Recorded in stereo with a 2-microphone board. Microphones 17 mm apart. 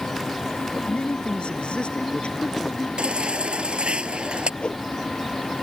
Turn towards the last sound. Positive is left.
turn(degrees=65)  # may be behind; listen again after turning